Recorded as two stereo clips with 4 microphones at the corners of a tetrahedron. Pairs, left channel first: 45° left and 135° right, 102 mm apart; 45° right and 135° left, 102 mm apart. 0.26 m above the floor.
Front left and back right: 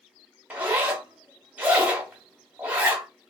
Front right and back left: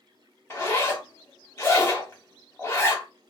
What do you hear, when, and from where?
0.5 s a zipper: 75° right, 0.9 m